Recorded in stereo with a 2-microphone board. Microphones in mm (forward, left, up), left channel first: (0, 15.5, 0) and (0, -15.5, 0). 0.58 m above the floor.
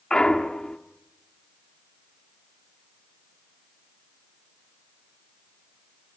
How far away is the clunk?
About 1.4 m.